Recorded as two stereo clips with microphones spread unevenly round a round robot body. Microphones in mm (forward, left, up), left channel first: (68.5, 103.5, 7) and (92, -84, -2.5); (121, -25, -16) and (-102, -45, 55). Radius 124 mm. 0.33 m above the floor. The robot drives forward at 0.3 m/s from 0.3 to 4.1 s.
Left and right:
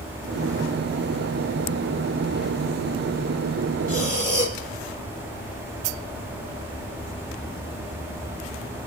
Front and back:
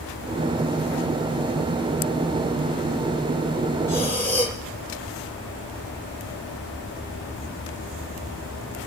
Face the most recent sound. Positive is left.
turn(degrees=65)